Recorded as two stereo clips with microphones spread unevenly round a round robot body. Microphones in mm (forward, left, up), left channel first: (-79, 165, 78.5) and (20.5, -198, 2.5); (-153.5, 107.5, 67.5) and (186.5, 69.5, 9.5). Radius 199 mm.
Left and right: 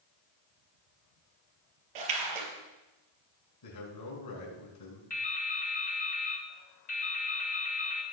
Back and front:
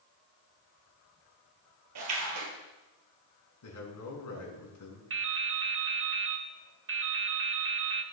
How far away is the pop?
I don't hear a pop.